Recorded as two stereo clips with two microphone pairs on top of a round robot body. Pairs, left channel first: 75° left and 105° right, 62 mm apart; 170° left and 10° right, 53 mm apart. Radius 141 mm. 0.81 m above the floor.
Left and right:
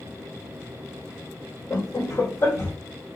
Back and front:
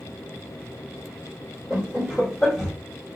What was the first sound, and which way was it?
Laughter, 75° left.